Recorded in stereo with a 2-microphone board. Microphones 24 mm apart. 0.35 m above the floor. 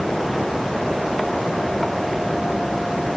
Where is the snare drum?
No snare drum in this recording.